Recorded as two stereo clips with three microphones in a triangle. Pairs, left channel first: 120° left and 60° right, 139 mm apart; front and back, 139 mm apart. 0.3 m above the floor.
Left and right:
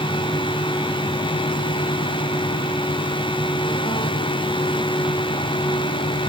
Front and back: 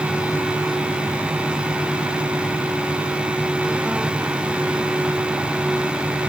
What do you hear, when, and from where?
Only background noise.